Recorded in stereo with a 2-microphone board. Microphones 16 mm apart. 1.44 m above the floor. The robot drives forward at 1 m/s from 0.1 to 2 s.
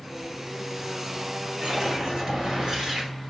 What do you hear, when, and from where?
1.6 s a whoosh: 50° right (ahead or behind), 5.5 m; by 3.1 s 45° right (ahead or behind), 6 m